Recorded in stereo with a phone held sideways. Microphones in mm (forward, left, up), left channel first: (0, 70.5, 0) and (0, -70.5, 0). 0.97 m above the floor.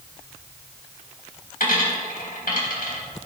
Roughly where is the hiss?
No hiss in this recording.